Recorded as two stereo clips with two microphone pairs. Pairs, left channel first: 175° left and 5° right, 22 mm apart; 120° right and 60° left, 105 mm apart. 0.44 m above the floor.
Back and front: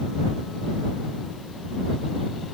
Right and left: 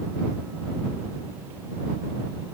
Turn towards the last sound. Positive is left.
No sound to turn to.